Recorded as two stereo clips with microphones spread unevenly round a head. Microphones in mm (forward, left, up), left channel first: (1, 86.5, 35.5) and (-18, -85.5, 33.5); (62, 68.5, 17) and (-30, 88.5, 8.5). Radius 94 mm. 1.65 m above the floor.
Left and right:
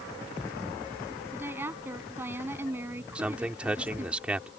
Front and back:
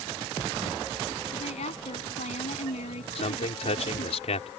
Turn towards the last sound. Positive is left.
turn(degrees=-10)